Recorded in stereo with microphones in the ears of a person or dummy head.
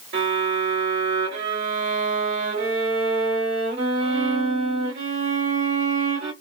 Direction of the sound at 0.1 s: 60° right (ahead or behind).